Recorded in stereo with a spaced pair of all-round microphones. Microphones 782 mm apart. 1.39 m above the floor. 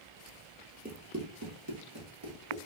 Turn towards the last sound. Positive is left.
turn(degrees=-35)  # may be behind; listen again after turning